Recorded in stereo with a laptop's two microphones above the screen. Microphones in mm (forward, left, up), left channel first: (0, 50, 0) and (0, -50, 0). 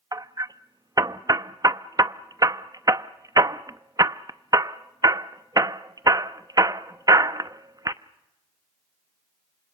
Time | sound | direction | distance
0.1 | hammering | 40° right (ahead or behind) | 0.8 m